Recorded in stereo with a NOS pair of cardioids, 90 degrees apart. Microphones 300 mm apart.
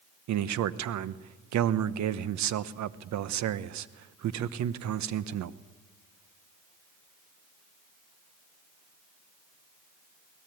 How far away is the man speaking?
About 1.0 m.